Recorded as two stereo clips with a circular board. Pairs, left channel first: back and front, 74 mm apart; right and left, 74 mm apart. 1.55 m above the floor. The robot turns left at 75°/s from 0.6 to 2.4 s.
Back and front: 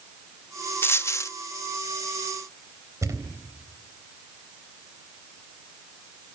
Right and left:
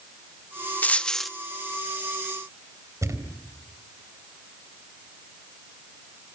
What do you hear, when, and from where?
0.8 s a dropped coin: 145° right, 1.1 m; by 1.3 s straight behind, 1.1 m
3.0 s a thud: 45° left, 3.5 m